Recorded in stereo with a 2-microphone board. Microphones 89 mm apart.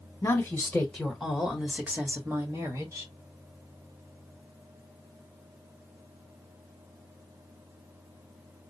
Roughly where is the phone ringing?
No phone ringing in this recording.